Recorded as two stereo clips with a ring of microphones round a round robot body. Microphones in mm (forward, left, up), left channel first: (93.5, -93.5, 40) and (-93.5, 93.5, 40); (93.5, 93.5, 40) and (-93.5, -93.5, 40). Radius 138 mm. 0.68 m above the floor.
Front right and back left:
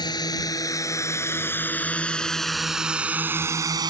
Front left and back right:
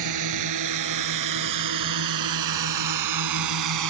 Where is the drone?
120° right; by 3.9 s 150° right.